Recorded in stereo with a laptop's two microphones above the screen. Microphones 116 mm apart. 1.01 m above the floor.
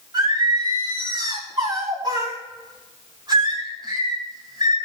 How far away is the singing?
About 3.5 m.